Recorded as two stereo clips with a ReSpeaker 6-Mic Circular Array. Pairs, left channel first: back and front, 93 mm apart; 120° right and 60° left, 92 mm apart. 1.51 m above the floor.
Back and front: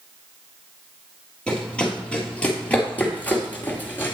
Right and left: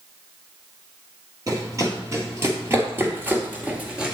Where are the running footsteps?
100° left, 2.5 m; by 4.1 s 135° left, 1.7 m.